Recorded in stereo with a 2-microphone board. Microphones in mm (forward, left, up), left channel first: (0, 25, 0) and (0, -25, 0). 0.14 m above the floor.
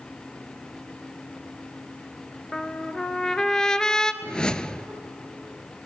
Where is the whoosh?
15° left (ahead or behind), 0.5 m.